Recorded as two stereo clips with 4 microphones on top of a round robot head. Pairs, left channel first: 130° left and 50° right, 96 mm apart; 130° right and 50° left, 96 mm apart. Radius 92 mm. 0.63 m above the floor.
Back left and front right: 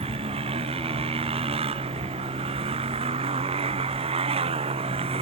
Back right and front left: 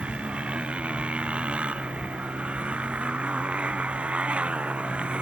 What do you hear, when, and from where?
0.0 s a motorcycle: 30° right